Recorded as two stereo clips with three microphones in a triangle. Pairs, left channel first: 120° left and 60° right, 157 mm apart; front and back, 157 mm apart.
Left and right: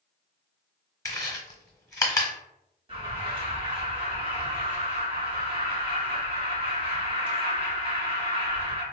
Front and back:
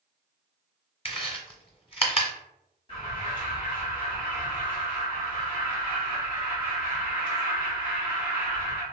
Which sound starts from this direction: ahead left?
Chewing, at 1.1 s.